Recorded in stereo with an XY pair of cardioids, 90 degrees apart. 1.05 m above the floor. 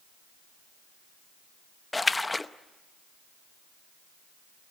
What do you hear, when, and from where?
1.9 s a splash: 20° left, 0.8 m